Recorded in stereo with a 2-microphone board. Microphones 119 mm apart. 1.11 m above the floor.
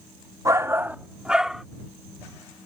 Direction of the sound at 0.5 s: 30° right (ahead or behind).